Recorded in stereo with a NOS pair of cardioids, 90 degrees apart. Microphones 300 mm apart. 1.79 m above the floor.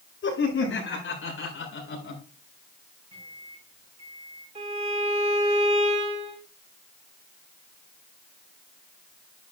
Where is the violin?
20° right, 8 m.